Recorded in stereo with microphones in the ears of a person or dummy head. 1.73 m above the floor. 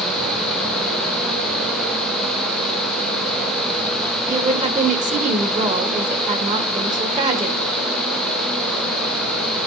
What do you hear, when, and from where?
4.3 s a woman speaking: 40° right (ahead or behind), 2 m